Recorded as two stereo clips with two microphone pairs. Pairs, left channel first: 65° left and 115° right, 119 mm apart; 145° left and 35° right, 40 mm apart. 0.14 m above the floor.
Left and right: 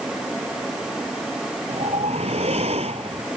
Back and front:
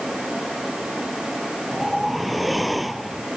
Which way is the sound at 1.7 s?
120° right.